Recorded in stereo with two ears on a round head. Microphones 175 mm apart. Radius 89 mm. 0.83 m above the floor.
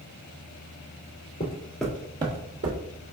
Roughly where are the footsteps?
Left.